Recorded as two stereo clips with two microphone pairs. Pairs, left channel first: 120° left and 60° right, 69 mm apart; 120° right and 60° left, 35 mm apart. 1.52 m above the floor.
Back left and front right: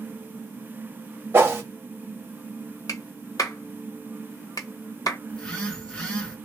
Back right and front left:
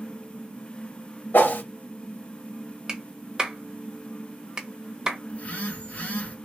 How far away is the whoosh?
About 1.0 m.